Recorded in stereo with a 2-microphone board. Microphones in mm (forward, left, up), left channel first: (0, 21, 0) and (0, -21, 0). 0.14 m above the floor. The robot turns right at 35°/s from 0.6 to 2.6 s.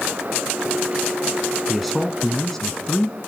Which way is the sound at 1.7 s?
Centre (ahead or behind).